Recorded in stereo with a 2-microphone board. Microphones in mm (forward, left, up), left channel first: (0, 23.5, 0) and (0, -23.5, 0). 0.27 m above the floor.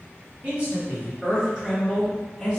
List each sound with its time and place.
0.4 s a man speaking: 40° right (ahead or behind), 1.8 m; by 2.6 s 5° left (ahead or behind), 1.5 m